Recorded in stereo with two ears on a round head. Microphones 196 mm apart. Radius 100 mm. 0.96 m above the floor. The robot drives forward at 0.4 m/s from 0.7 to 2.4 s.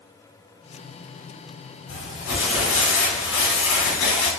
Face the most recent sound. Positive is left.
turn(degrees=65)  # may be behind; listen again after turning